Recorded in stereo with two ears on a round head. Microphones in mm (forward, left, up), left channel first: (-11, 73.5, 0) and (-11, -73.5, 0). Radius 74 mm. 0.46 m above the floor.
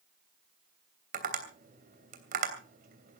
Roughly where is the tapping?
Right.